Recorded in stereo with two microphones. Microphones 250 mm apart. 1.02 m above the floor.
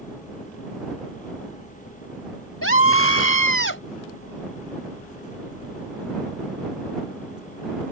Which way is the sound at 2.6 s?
60° left (ahead or behind).